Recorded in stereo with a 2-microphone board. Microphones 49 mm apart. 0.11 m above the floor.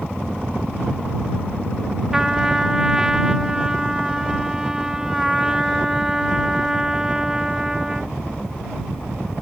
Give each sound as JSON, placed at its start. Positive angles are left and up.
{"t": 2.1, "sound": "a trumpet", "side_deg": -10}